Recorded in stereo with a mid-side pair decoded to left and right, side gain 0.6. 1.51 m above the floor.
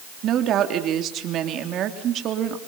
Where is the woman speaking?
55° right, 3.5 m.